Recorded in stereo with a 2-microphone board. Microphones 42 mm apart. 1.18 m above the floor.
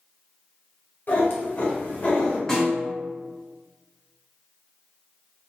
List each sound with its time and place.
1.1 s a cat meowing: 60° left (ahead or behind), 1.4 m; by 2.4 s 30° left (ahead or behind), 1.4 m
2.5 s a snare drum: 15° left (ahead or behind), 1.6 m